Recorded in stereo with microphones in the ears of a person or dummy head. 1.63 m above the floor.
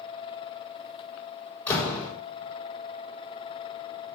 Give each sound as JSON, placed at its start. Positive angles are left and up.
{"t": 1.7, "sound": "a door slam", "side_deg": 15, "distance_m": 3.5}